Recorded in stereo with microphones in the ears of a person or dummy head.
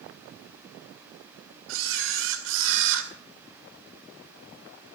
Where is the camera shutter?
75° right (ahead or behind), 2.5 m.